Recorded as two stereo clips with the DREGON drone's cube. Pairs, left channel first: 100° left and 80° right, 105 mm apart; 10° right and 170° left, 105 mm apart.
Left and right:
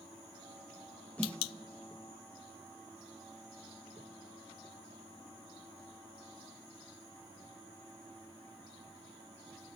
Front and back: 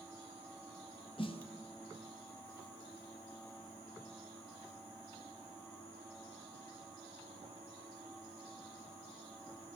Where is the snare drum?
20° left, 0.5 m.